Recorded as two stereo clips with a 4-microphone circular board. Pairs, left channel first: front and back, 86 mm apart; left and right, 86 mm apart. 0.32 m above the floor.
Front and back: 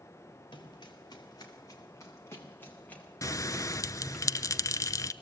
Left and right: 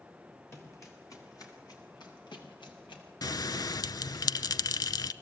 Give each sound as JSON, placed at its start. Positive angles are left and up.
{"t": 0.5, "sound": "running footsteps", "azimuth_deg": 30, "distance_m": 6.0}
{"t": 3.2, "sound": "a bell", "azimuth_deg": 50, "distance_m": 0.6}